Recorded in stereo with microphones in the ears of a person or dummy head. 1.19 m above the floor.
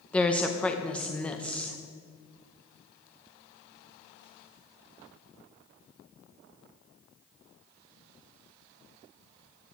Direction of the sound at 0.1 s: 10° left (ahead or behind).